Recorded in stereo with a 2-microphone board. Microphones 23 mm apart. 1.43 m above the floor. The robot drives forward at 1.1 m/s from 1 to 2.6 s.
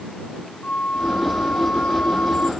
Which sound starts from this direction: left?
A flute, at 0.6 s.